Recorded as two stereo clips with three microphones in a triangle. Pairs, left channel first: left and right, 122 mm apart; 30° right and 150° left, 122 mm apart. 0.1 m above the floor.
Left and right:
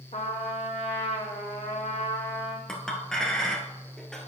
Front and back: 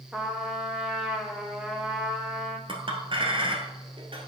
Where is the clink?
175° left, 1.5 m.